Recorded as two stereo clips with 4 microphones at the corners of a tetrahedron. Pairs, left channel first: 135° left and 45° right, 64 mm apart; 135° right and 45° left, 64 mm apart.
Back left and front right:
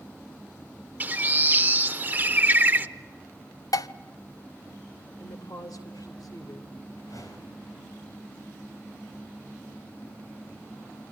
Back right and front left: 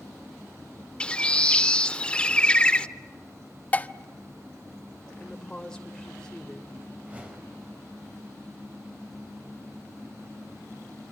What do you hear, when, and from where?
1.0 s a bird: 80° right, 0.5 m
3.7 s dishes clattering: 160° left, 0.6 m
5.2 s a woman speaking: 145° left, 3 m
7.0 s a whoosh: 110° left, 4.5 m